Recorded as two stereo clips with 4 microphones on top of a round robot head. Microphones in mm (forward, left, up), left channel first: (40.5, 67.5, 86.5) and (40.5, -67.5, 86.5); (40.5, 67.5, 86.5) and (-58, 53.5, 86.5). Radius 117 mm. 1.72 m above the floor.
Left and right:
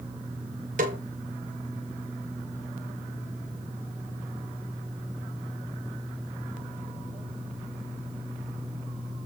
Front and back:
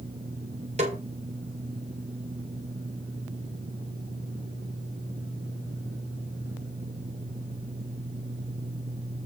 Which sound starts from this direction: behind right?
A snare drum, at 0.8 s.